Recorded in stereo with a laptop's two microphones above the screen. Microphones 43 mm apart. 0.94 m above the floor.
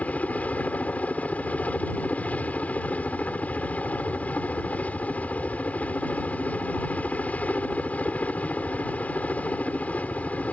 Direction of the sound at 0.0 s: 35° left (ahead or behind).